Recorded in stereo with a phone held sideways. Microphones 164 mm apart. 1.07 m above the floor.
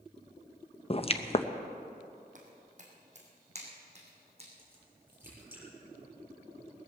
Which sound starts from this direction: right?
Footsteps, at 2.4 s.